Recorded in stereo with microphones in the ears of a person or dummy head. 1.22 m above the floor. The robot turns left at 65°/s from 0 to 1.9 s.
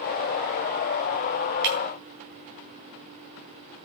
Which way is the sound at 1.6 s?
60° right (ahead or behind).